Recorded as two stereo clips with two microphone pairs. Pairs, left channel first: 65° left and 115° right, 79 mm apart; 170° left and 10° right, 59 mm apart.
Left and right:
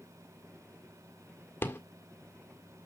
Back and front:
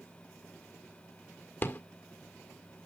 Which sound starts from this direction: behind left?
A rattle, at 1.6 s.